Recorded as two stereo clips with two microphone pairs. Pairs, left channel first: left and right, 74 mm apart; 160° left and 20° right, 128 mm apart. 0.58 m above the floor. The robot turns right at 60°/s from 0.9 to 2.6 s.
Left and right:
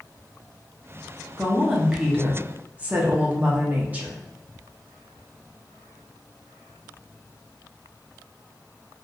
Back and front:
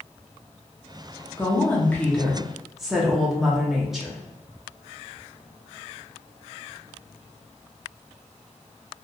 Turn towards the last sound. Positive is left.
turn(degrees=-115)